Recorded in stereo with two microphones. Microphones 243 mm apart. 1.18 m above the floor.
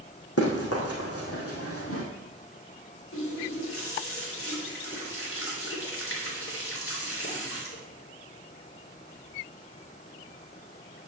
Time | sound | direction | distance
0.4 | running footsteps | 70° left (ahead or behind) | 4 m
3.1 | a running tap | 60° left (ahead or behind) | 3 m